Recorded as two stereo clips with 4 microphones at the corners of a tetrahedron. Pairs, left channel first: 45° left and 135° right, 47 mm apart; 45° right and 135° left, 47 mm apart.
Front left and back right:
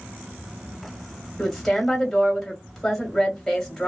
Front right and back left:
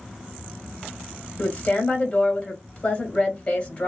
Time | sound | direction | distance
1.4 | a woman speaking | 35° right | 1.3 m